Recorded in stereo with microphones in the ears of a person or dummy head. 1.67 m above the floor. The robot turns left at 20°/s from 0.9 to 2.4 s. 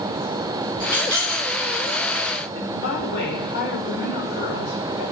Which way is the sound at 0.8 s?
25° left (ahead or behind).